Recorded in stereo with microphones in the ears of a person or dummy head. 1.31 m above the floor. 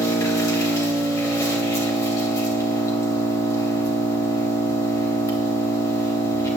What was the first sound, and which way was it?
An engine running, 15° left (ahead or behind).